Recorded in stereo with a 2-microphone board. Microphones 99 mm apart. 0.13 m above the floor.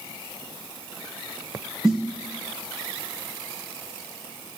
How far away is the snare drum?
About 3 m.